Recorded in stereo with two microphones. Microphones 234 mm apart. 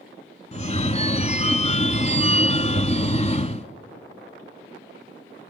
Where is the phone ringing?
30° left (ahead or behind), 0.7 m.